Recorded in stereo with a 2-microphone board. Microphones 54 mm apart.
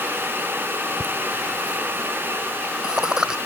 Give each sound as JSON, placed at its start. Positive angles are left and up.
{"t": 1.0, "sound": "laughter", "side_deg": -25}